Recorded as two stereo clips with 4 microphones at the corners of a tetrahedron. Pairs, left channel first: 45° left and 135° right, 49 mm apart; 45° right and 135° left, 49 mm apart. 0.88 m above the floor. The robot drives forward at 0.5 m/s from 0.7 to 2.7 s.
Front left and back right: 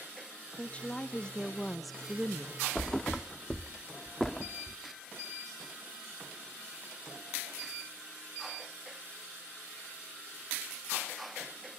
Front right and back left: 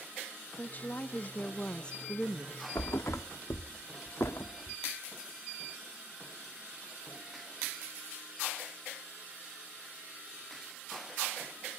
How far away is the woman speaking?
About 1.1 m.